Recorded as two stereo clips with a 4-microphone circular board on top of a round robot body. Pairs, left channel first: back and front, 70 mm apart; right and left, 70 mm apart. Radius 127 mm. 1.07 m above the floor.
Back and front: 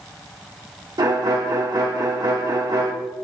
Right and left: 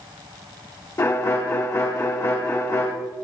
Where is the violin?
35° right, 1.5 m.